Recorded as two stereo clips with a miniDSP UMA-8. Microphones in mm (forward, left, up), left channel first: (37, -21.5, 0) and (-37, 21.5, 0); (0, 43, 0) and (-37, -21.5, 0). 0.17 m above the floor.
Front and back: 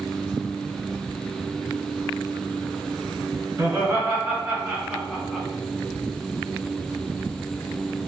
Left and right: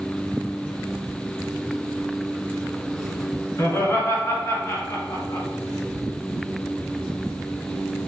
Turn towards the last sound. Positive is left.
turn(degrees=60)